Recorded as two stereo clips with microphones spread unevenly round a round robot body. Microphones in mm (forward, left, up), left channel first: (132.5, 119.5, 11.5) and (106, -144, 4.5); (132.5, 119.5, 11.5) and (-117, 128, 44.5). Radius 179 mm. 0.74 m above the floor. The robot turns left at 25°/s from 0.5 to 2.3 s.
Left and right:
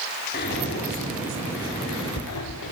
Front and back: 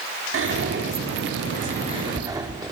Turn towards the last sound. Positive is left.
turn(degrees=100)